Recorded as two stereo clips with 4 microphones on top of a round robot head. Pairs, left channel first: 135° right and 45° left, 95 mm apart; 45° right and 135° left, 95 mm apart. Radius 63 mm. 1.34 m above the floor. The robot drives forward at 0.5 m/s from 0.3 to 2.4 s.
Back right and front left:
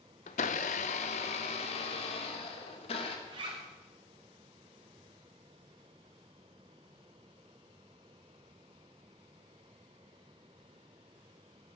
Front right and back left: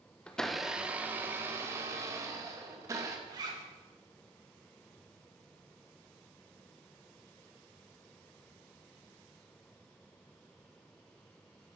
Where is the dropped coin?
I don't hear a dropped coin.